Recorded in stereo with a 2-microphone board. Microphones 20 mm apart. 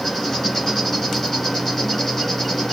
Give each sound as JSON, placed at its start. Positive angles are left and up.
{"t": 0.0, "sound": "an insect", "side_deg": 10, "distance_m": 3.5}